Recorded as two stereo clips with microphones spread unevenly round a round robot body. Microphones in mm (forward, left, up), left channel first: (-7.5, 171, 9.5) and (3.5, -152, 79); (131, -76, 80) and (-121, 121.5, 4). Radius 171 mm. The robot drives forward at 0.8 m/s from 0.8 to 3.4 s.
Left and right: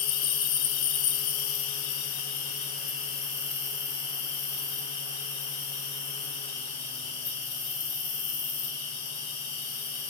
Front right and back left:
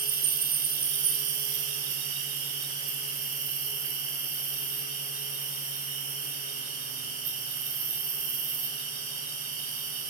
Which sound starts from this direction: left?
An insect, at 0.0 s.